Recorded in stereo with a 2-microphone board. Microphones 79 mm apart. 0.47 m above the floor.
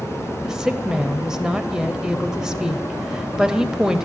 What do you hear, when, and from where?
0.4 s a woman speaking: 10° right (ahead or behind), 2 m